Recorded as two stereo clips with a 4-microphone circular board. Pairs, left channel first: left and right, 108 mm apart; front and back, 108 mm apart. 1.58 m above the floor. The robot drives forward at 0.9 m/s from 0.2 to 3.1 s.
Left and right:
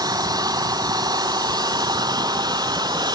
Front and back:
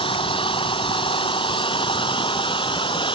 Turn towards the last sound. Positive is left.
turn(degrees=-40)